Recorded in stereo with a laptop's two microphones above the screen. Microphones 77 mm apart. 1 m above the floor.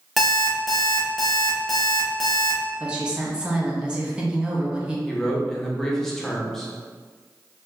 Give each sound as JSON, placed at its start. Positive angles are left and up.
{"t": 0.2, "sound": "an alarm clock", "side_deg": 0, "distance_m": 0.9}
{"t": 2.8, "sound": "a woman speaking", "side_deg": -15, "distance_m": 1.0}
{"t": 5.1, "sound": "a man speaking", "side_deg": 5, "distance_m": 0.6}